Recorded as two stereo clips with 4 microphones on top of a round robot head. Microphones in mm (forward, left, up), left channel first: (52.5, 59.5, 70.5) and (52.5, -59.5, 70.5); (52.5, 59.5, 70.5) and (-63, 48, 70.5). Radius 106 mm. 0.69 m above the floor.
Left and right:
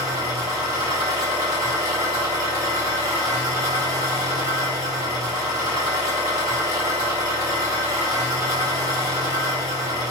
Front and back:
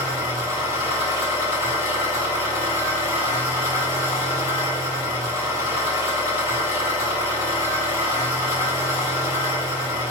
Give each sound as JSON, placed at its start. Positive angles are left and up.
{"t": 0.0, "sound": "an engine running", "azimuth_deg": -30, "distance_m": 2.0}